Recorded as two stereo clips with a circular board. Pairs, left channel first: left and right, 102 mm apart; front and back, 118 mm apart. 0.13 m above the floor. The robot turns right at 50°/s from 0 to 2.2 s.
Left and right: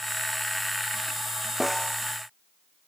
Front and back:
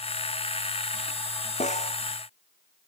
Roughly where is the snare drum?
Ahead.